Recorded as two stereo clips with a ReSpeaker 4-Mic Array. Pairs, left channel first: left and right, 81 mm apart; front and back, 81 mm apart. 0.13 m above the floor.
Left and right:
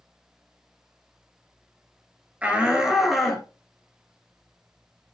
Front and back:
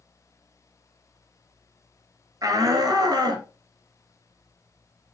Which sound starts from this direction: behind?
A shout, at 2.4 s.